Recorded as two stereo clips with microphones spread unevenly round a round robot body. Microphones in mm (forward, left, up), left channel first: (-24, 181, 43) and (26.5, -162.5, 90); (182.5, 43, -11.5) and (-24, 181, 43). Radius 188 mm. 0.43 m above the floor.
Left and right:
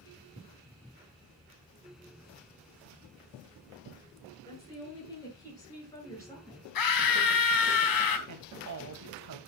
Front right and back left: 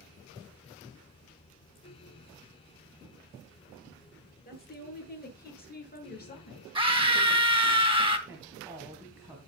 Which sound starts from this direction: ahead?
A woman speaking, at 4.5 s.